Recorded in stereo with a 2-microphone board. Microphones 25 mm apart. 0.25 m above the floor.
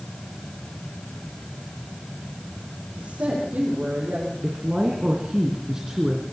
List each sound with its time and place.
3.0 s a woman speaking: 80° right, 7.5 m; by 4.3 s 85° right, 7 m
4.4 s a woman speaking: 30° right (ahead or behind), 2.5 m